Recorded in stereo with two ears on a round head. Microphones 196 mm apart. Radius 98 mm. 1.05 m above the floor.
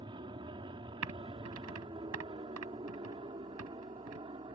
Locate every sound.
0.0 s an aircraft: 25° right (ahead or behind)
1.0 s typing on a keyboard: 90° right